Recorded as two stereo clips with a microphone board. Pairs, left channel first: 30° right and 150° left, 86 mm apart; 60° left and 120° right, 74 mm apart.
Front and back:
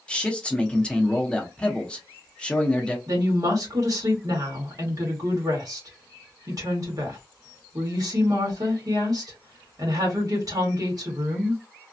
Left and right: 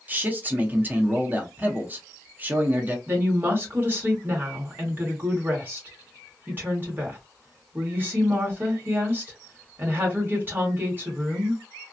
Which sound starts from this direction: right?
A man speaking, at 0.1 s.